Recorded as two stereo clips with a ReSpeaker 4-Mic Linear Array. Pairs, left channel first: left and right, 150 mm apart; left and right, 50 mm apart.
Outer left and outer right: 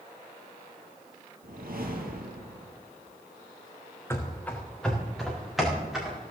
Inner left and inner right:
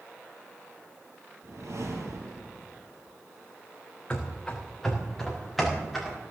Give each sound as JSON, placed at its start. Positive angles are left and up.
{"t": 1.4, "sound": "a whoosh", "side_deg": -75, "distance_m": 3.0}
{"t": 4.1, "sound": "running footsteps", "side_deg": 15, "distance_m": 2.5}